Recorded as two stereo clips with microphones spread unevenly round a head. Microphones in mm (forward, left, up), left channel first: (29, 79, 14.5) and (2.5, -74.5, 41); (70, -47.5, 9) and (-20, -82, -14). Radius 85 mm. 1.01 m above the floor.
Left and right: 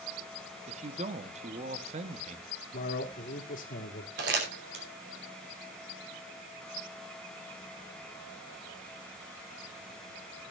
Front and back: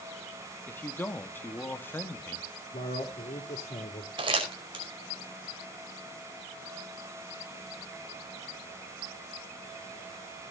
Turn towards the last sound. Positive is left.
turn(degrees=-130)